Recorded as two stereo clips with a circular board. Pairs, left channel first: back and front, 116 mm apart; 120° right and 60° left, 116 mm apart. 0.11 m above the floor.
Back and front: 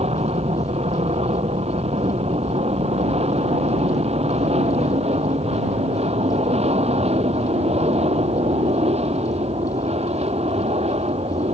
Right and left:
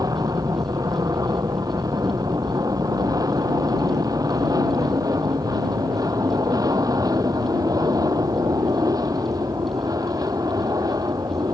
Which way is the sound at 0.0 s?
5° left.